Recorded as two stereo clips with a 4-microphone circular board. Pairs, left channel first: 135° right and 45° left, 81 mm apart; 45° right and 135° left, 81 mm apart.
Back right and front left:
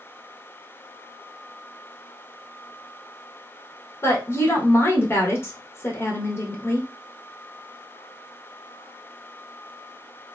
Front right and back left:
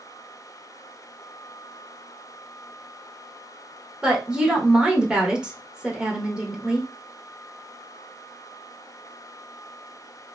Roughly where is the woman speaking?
Behind right.